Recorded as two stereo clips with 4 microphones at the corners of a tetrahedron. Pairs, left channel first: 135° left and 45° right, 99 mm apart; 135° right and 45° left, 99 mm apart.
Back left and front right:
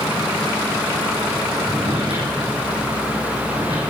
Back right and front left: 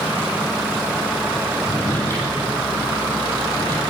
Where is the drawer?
70° right, 6 m.